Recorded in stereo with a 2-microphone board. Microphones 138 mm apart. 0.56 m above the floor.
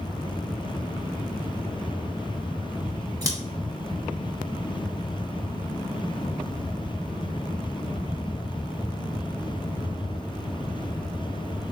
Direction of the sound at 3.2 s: 25° right (ahead or behind).